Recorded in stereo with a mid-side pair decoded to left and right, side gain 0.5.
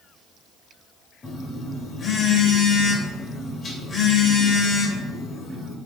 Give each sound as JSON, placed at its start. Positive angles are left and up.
{"t": 1.2, "sound": "a phone buzzing", "azimuth_deg": 35, "distance_m": 1.1}